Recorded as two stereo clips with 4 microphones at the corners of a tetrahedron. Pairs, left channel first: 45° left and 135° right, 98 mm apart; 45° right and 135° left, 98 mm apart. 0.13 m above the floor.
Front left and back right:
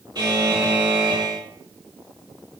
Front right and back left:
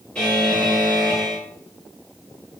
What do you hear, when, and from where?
0.1 s a buzzer: 120° right, 2 m